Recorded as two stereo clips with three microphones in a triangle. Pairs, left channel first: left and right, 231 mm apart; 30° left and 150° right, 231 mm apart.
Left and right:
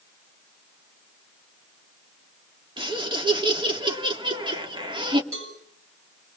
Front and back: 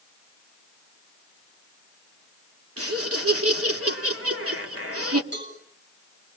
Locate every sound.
2.8 s laughter: 160° right, 2.5 m
5.3 s a cowbell: 110° right, 9 m